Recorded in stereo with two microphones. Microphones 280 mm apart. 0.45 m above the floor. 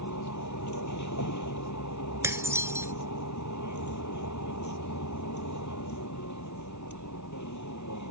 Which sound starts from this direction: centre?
Dishes clattering, at 2.2 s.